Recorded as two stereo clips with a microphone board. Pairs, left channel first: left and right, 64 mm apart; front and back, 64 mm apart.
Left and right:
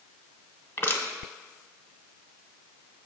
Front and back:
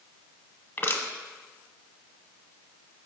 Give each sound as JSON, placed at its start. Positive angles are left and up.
{"t": 0.8, "sound": "crushing", "azimuth_deg": 50, "distance_m": 0.8}